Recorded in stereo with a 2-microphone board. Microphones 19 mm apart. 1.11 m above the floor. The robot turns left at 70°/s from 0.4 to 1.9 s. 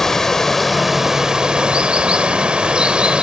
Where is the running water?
20° left, 1.8 m; by 3.2 s 85° right, 1.8 m.